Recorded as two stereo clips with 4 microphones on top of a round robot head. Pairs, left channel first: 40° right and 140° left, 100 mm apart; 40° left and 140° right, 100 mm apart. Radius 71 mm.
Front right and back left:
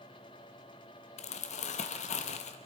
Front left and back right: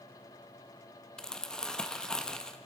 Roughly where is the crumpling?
Ahead right.